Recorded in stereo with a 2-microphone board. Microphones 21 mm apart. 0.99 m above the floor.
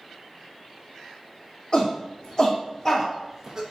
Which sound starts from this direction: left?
A shout, at 1.7 s.